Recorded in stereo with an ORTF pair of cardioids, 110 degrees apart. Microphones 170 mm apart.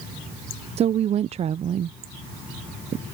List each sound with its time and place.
0.8 s a woman speaking: 40° right